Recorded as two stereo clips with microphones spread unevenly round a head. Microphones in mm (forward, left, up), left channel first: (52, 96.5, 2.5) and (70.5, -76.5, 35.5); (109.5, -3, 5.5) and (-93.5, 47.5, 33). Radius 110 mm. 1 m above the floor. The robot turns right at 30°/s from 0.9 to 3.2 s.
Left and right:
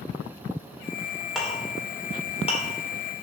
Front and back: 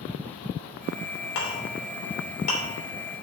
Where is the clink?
5° left, 3 m; by 2.6 s 45° left, 3 m.